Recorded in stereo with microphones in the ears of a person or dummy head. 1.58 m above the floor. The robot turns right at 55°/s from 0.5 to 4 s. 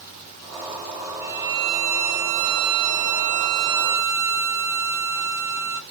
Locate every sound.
1.2 s a violin: 175° right, 0.7 m; by 5.8 s 20° right, 0.7 m